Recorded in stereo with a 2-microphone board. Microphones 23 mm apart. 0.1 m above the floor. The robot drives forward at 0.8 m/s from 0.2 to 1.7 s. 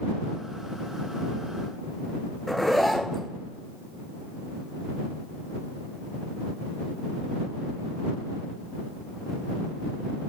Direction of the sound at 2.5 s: 5° left (ahead or behind).